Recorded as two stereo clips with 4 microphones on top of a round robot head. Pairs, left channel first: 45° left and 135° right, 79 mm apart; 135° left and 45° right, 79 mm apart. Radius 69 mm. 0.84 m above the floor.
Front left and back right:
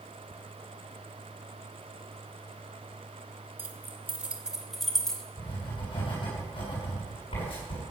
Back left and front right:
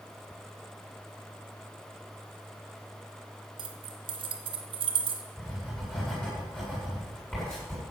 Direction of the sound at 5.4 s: 55° left.